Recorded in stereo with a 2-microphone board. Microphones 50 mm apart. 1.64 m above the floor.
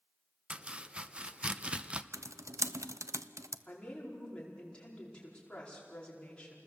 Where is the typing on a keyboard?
80° right, 0.7 m.